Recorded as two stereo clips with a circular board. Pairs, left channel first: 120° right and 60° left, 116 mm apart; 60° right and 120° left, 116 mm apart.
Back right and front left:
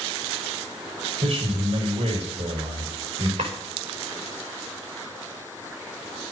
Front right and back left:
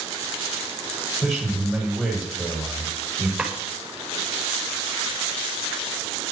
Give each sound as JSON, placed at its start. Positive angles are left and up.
{"t": 1.2, "sound": "a man speaking", "azimuth_deg": 25, "distance_m": 7.0}
{"t": 3.4, "sound": "a drawer", "azimuth_deg": 30, "distance_m": 5.5}